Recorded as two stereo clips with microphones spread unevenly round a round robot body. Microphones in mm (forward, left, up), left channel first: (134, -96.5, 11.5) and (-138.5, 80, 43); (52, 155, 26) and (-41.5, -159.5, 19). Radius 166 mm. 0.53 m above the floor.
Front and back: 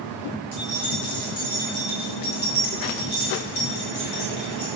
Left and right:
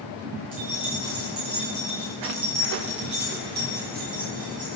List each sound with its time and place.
0.5 s keys jangling: 60° right, 7.5 m; by 4.8 s 40° right, 6 m